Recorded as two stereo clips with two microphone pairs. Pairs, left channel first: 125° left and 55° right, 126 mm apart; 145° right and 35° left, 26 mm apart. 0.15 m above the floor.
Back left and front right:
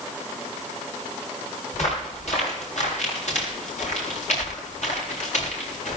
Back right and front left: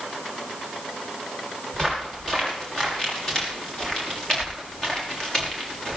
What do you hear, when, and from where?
1.7 s footsteps: 150° left, 8 m; by 6.0 s 145° left, 5.5 m